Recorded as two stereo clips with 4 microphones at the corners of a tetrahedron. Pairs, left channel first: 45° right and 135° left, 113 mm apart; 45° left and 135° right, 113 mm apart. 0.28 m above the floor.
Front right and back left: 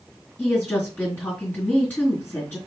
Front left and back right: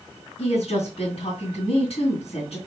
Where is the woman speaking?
25° left, 3 m.